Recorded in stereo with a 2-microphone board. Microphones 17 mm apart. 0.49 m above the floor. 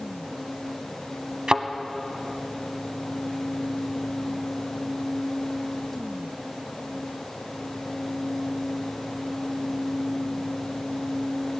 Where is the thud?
55° right (ahead or behind), 0.9 m.